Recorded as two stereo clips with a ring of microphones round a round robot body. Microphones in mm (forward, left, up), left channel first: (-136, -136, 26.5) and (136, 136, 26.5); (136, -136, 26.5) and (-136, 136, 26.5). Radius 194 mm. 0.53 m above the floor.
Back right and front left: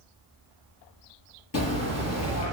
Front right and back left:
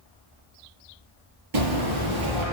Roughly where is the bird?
Behind.